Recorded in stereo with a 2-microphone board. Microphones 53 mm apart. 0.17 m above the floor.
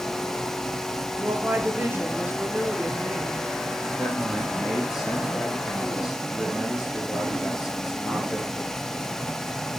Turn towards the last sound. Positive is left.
turn(degrees=-10)  # may be behind; listen again after turning